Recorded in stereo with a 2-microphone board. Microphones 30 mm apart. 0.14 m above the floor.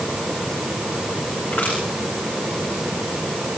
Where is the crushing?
70° left (ahead or behind), 10 m.